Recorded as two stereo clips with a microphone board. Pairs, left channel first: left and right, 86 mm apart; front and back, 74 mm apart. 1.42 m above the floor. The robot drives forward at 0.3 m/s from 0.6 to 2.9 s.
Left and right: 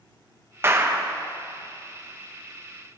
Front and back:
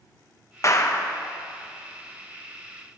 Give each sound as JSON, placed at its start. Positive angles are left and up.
{"t": 0.6, "sound": "a clap", "azimuth_deg": -35, "distance_m": 0.8}